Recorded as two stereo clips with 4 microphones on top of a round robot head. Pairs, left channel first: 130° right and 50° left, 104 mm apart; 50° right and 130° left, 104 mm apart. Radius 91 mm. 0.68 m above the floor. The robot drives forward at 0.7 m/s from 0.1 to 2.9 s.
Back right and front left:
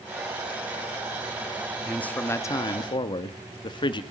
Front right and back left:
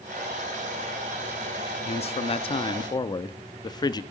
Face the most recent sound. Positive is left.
turn(degrees=-95)